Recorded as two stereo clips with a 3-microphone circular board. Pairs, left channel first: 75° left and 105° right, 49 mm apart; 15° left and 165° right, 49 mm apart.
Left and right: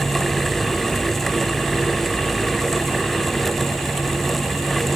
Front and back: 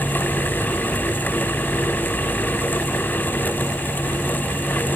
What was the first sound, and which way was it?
Only background noise.